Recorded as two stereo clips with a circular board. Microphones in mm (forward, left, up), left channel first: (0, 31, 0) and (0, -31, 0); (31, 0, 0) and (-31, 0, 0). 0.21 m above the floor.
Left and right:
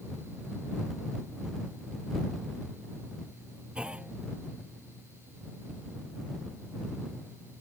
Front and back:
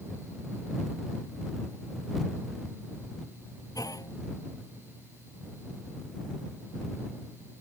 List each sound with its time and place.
3.8 s a clunk: 15° right